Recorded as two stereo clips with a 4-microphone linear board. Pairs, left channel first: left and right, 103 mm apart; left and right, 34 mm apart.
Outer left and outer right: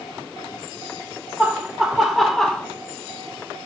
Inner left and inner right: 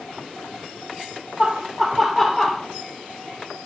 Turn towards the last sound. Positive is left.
turn(degrees=5)  # may be behind; listen again after turning